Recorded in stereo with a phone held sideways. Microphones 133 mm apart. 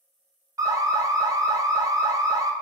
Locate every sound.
0.6 s an alarm: 25° right (ahead or behind), 0.5 m